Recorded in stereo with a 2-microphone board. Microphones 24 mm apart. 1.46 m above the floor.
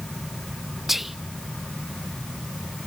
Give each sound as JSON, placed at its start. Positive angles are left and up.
{"t": 0.9, "sound": "whispering", "side_deg": -5, "distance_m": 0.7}